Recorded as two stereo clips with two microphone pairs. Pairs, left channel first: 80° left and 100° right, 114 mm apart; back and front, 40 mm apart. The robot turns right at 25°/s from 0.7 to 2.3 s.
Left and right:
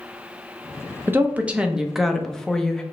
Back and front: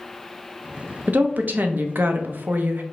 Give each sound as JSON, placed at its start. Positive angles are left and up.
{"t": 1.1, "sound": "a woman speaking", "azimuth_deg": -30, "distance_m": 0.6}